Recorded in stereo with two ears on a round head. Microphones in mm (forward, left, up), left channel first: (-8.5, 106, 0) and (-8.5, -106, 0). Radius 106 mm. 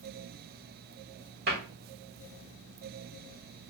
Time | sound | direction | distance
1.5 | a cupboard door | 45° right (ahead or behind) | 1.4 m